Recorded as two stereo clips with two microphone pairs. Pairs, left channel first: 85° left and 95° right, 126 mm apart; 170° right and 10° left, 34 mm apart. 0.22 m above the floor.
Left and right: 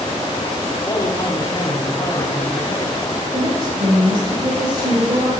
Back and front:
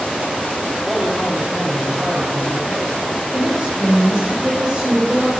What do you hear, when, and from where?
0.9 s a man speaking: 70° left, 1.4 m
3.3 s a woman speaking: 70° right, 3 m